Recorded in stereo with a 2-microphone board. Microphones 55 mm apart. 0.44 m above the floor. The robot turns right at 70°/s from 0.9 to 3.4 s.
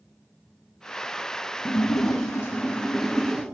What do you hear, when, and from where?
1.6 s a splash: 80° left, 1.6 m; by 3.4 s 155° right, 1.6 m